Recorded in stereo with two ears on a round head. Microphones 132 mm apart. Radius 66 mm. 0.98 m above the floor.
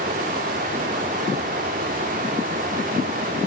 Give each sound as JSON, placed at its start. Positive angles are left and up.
{"t": 0.0, "sound": "running water", "side_deg": -55, "distance_m": 2.0}